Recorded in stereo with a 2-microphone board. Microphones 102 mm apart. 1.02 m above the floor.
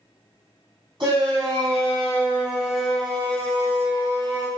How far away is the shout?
About 1.4 m.